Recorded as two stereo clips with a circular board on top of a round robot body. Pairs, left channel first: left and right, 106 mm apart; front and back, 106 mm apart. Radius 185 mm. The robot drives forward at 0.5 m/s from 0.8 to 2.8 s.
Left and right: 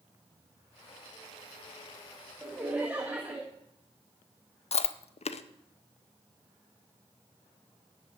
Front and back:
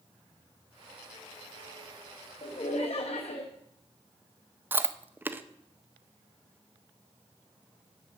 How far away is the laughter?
About 1.4 m.